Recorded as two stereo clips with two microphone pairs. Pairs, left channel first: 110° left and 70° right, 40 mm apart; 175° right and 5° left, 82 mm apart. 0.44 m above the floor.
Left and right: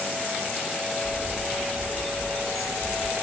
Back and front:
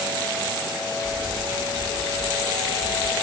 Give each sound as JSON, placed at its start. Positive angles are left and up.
{"t": 1.0, "sound": "a bird", "azimuth_deg": 10, "distance_m": 1.0}